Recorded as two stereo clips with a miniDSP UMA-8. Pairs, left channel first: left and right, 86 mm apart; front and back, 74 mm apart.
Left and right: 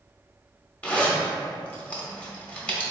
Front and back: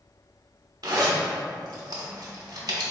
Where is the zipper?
160° left, 0.8 m.